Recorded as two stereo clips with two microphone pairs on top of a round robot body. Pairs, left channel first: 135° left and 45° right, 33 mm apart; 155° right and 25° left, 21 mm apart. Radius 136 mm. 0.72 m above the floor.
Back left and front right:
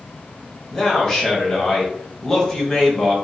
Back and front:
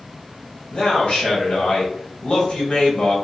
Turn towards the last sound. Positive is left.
turn(degrees=-155)